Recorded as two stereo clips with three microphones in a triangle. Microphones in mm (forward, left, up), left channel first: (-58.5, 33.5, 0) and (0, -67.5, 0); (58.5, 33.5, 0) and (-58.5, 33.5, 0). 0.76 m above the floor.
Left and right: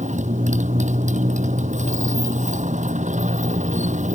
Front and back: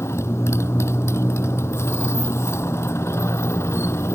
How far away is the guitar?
I don't hear a guitar.